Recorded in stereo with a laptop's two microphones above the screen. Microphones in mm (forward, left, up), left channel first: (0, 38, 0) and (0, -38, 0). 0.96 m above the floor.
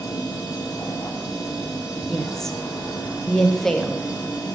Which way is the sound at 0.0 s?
50° left (ahead or behind).